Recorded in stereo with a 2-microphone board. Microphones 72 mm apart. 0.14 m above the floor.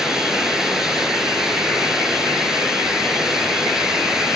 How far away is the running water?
About 1.4 m.